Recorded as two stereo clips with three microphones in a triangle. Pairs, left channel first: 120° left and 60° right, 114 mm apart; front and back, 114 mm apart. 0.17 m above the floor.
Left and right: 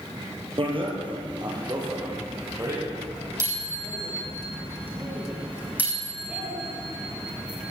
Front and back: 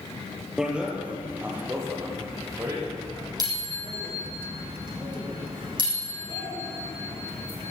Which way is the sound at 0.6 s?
95° right.